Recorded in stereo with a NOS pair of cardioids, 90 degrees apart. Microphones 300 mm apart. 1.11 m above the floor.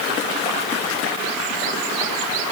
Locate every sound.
Only background noise.